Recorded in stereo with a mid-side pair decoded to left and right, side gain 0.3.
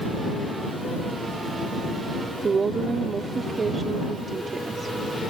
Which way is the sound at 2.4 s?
55° right.